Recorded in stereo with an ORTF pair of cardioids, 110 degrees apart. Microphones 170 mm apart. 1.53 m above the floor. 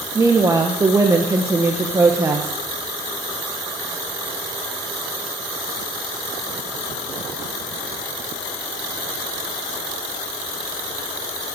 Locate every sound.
0.1 s a woman speaking: 20° right, 1.2 m